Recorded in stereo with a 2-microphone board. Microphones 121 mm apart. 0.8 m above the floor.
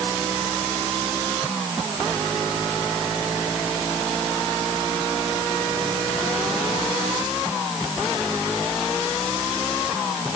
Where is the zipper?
No zipper in this recording.